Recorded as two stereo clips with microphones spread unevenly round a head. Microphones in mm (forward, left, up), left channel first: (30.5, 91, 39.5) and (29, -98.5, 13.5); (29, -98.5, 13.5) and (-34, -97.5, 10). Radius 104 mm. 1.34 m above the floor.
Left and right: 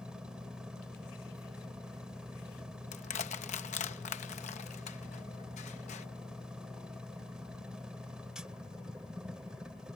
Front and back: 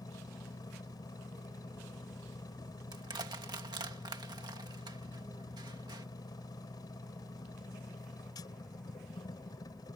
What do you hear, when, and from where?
0.0 s a machine running: straight ahead
2.9 s crushing: 150° left